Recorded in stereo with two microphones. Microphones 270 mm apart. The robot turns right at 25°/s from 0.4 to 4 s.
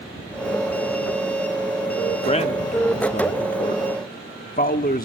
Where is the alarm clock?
No alarm clock in this recording.